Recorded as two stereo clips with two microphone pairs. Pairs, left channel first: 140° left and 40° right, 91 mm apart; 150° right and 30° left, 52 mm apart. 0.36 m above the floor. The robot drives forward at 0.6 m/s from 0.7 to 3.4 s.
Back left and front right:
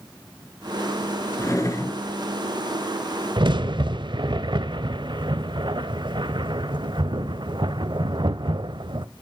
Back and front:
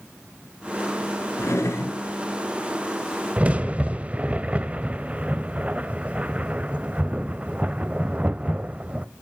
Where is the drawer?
165° right, 1.7 m; by 2.0 s 170° right, 2 m.